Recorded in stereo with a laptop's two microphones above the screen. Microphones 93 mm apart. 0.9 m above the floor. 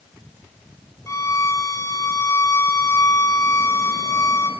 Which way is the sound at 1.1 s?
35° left (ahead or behind).